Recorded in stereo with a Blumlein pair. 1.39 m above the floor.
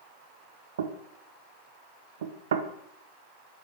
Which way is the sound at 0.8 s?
65° right.